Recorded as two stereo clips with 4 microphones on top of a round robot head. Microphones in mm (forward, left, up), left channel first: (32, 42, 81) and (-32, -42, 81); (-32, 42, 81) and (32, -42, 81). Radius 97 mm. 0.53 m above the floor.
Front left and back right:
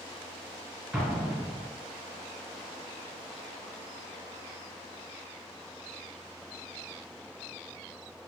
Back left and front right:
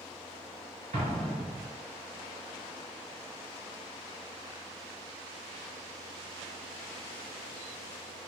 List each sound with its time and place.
0.9 s an explosion: 40° right, 1.7 m